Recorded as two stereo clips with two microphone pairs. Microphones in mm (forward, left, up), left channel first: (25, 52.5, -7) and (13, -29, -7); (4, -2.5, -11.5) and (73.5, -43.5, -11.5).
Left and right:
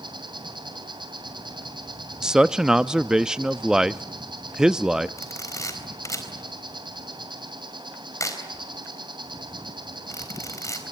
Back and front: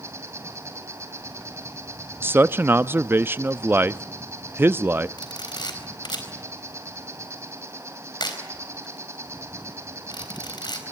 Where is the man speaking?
25° right, 0.6 m.